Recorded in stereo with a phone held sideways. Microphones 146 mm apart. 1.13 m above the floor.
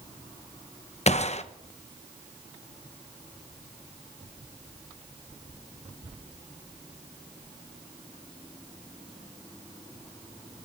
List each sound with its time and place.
1.1 s a gunshot: 50° left (ahead or behind), 0.8 m